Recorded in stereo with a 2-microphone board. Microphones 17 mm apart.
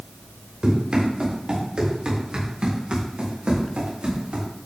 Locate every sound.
0.6 s running footsteps: 55° right (ahead or behind), 3.5 m; by 4.5 s 85° right, 4 m